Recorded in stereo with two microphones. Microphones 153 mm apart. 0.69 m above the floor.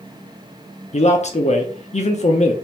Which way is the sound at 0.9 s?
50° left (ahead or behind).